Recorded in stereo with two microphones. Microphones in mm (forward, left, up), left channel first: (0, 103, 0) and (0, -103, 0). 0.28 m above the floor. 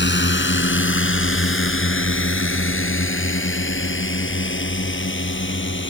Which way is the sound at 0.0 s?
60° left (ahead or behind).